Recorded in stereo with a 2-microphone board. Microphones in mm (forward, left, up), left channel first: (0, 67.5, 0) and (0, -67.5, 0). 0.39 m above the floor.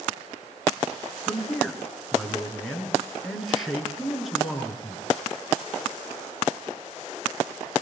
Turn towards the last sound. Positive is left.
turn(degrees=0)  # may be behind; listen again after turning